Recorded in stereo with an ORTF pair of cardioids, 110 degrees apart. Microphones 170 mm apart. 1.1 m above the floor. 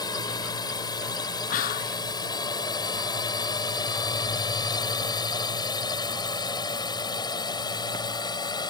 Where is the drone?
25° left.